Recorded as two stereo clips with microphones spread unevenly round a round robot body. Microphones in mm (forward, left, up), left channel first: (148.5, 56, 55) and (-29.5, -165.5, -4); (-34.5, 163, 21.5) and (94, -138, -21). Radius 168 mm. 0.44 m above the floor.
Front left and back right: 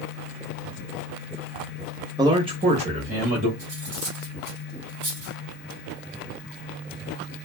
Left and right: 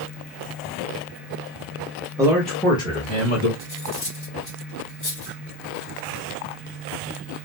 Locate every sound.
2.2 s a man speaking: 115° right, 0.7 m; by 3.5 s straight behind, 1.2 m
3.6 s cutlery clinking: 165° right, 1.9 m